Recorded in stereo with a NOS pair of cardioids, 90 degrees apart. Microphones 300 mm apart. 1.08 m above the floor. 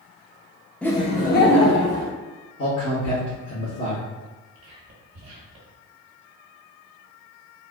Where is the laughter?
5° left, 0.9 m; by 2.1 s 50° left, 1.8 m.